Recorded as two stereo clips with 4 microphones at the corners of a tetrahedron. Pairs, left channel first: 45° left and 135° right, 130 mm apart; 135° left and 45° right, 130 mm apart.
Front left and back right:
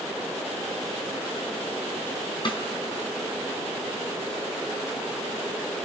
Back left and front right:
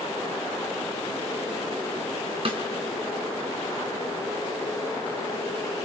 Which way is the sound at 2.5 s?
5° right.